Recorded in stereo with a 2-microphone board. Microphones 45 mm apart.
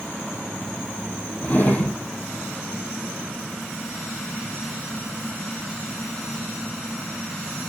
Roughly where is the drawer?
Left.